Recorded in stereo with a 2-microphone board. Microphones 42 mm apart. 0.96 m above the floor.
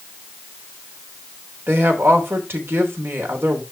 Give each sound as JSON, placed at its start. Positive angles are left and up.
{"t": 1.7, "sound": "a woman speaking", "side_deg": -70, "distance_m": 3.5}